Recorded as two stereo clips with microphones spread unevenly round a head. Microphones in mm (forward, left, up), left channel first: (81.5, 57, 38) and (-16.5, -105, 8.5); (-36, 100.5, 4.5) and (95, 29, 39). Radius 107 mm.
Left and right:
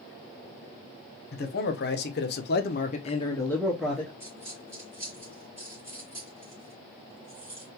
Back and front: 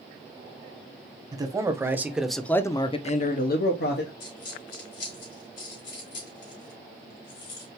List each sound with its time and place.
1.3 s a man speaking: 30° left, 1.3 m; by 4.1 s 150° left, 1.0 m
4.2 s a dropped coin: 155° left, 3 m